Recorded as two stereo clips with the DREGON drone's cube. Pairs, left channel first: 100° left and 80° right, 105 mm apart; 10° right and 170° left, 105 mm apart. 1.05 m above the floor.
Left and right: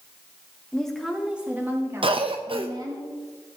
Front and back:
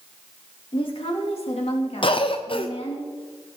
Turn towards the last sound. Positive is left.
turn(degrees=-45)